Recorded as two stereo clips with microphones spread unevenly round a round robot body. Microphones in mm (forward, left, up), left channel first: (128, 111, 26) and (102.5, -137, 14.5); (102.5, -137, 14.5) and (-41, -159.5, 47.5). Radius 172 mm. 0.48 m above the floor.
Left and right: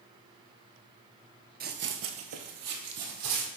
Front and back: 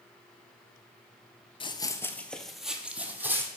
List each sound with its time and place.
1.6 s running footsteps: 50° right, 0.6 m; by 3.5 s 100° right, 1.4 m